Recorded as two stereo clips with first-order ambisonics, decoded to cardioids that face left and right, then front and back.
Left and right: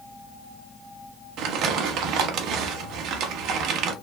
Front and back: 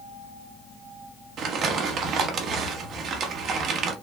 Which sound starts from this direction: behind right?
Crumpling, at 1.4 s.